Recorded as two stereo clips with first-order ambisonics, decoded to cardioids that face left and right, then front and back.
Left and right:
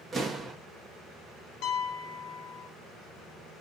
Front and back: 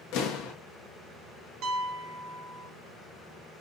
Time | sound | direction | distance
0.1 | an explosion | 10° right | 1.4 m
1.6 | a piano | 130° left | 0.7 m